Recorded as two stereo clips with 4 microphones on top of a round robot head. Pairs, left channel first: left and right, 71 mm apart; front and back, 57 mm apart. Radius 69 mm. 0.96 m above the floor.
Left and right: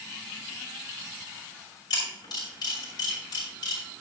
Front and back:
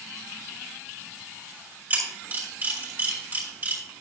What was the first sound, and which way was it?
A camera shutter, 125° left.